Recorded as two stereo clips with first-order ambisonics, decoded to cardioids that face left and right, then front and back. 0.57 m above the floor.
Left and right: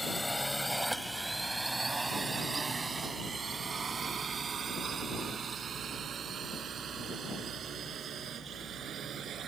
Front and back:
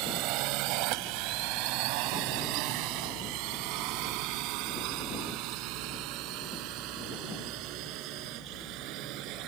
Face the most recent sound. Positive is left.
turn(degrees=-150)